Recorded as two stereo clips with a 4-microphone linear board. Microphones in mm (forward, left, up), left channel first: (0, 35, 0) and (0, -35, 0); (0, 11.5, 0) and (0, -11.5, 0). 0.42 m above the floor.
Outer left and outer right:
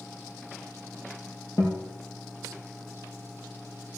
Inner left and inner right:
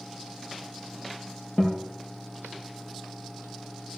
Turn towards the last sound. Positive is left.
turn(degrees=45)  # may be behind; listen again after turning